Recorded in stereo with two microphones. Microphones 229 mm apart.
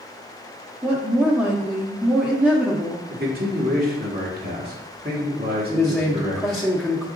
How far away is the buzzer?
No buzzer in this recording.